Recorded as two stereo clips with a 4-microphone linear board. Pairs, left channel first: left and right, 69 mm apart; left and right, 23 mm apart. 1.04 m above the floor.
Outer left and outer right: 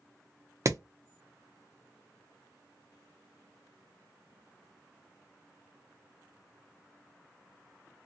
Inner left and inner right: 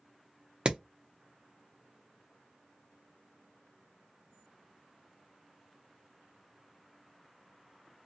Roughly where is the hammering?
Right.